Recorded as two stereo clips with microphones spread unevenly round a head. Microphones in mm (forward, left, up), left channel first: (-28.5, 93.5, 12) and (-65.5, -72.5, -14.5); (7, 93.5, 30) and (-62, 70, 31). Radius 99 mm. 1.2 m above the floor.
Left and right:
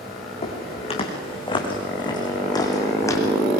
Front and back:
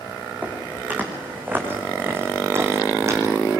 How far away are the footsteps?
About 6 m.